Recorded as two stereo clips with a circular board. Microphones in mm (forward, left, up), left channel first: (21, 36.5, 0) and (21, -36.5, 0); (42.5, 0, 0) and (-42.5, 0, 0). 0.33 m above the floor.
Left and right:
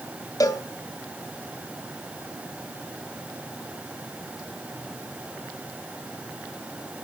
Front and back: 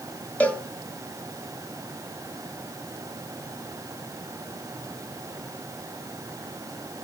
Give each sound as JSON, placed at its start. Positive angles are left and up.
{"t": 0.4, "sound": "a cowbell", "azimuth_deg": 70, "distance_m": 2.0}